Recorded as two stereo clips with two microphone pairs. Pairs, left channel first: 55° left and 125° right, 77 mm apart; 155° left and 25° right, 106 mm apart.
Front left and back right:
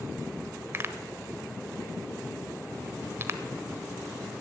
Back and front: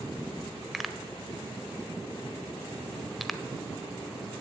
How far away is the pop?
About 1.1 m.